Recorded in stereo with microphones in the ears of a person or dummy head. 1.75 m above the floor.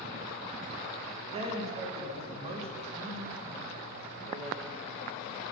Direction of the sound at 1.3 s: 35° right (ahead or behind).